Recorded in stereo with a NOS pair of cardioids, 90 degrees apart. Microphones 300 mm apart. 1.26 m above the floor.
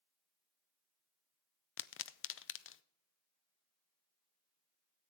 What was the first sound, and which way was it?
A pop, 45° left.